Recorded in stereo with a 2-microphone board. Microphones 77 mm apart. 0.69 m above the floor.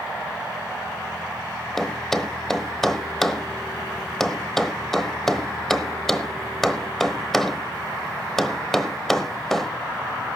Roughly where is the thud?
Centre.